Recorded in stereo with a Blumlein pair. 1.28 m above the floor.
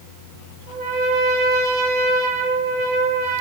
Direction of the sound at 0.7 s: 50° right.